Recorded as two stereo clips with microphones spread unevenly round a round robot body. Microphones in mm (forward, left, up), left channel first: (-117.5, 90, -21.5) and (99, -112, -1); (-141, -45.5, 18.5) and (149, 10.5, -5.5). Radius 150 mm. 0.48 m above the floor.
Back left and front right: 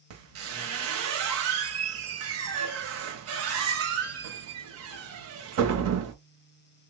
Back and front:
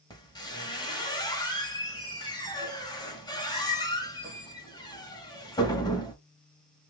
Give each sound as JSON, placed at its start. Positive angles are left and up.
{"t": 0.1, "sound": "a squeak", "azimuth_deg": -90, "distance_m": 0.9}